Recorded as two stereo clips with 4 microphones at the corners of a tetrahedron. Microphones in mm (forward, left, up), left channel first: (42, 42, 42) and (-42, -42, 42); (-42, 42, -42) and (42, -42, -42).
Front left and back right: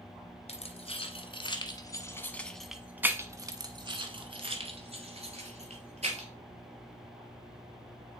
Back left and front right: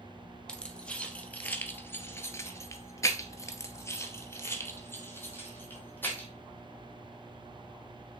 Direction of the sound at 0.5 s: 55° left.